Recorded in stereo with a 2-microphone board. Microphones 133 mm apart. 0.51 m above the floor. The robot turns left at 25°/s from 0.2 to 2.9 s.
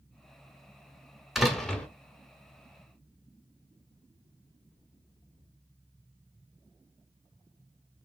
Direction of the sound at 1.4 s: Centre (ahead or behind).